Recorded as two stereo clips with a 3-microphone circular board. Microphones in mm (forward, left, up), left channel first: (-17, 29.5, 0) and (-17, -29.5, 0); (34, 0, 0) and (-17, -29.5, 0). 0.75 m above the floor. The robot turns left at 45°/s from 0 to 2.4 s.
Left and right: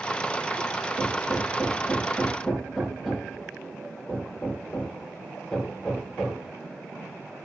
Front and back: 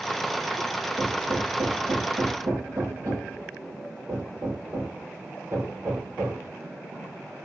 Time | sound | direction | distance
1.0 | hammering | 115° right | 9 m